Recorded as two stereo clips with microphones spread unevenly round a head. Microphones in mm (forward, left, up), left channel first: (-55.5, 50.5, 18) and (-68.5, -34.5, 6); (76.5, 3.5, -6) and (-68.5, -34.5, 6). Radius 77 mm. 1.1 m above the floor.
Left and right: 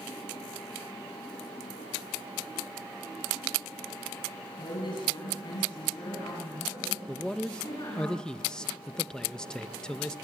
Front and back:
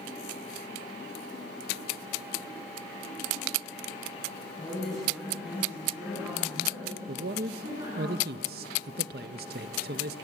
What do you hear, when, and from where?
4.6 s a woman speaking: 100° left, 7.5 m; by 8.1 s 130° left, 9.5 m
7.1 s a man speaking: 165° left, 0.7 m